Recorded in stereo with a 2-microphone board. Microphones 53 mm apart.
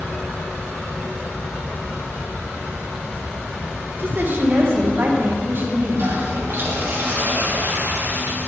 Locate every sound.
4.0 s a woman speaking: 45° right (ahead or behind), 1.1 m
5.9 s a toilet flushing: 45° right (ahead or behind), 3 m